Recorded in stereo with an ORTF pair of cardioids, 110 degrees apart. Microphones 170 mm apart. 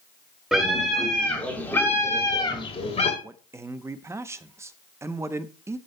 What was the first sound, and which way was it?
A scream, 5° right.